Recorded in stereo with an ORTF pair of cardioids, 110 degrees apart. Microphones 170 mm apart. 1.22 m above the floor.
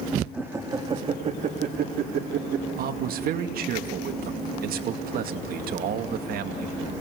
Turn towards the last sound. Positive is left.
turn(degrees=-65)